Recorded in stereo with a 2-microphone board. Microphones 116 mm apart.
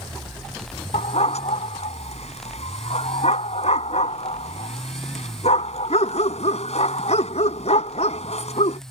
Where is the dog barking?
70° left (ahead or behind).